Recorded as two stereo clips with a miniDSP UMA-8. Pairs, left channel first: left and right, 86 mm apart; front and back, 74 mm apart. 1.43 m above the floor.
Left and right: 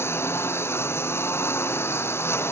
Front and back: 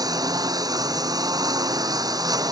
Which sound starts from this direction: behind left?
A lawn mower, at 0.0 s.